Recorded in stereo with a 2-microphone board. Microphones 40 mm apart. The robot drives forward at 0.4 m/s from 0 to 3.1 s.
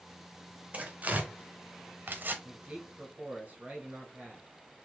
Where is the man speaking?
35° right (ahead or behind), 1.1 m; by 4.5 s 30° right (ahead or behind), 1.2 m.